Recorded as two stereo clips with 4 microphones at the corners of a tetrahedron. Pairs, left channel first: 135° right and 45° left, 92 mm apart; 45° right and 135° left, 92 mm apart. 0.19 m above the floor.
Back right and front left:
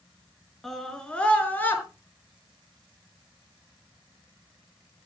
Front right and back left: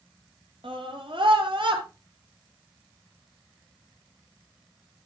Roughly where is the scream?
Behind left.